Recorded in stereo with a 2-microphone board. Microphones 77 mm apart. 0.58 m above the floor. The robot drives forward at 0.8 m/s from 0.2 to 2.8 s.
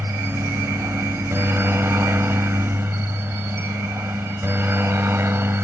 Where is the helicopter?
35° right (ahead or behind); by 5.7 s 30° right (ahead or behind).